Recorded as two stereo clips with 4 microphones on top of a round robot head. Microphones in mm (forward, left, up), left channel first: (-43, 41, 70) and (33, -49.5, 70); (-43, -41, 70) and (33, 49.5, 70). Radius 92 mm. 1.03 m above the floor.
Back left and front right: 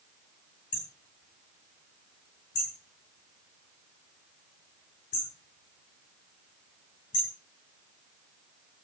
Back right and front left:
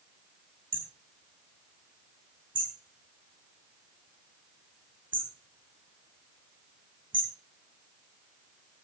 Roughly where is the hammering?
Left.